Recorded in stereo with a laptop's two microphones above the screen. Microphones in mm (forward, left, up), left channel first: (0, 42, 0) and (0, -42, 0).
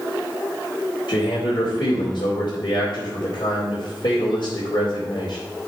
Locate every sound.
1.1 s a man speaking: 80° left, 2.5 m